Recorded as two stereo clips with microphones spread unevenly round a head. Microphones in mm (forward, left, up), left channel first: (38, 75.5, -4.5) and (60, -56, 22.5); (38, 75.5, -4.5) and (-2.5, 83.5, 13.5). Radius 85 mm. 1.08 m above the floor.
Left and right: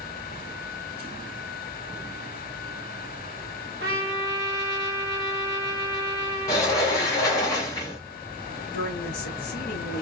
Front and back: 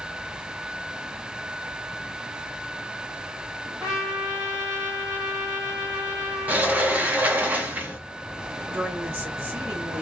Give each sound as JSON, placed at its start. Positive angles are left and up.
{"t": 3.8, "sound": "a trumpet", "azimuth_deg": -120, "distance_m": 0.9}
{"t": 6.5, "sound": "a sliding door", "azimuth_deg": 175, "distance_m": 0.6}
{"t": 8.7, "sound": "a woman speaking", "azimuth_deg": 125, "distance_m": 0.9}